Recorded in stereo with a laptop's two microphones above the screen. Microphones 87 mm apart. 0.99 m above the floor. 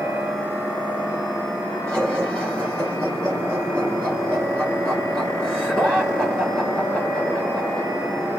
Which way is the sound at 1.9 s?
10° left (ahead or behind).